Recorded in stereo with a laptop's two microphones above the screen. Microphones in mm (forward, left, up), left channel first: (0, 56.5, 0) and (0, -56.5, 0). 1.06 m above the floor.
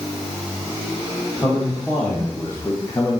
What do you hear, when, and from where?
1.4 s a man speaking: 20° left (ahead or behind), 1.7 m; by 3.2 s 30° left (ahead or behind), 0.9 m